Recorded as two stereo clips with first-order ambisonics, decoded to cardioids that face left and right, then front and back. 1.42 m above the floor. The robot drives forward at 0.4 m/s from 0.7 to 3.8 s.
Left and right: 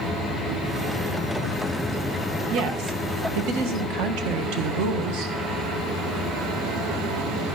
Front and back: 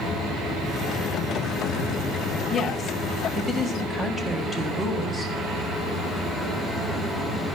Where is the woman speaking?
75° right, 1.5 m; by 5.3 s 95° right, 1.5 m.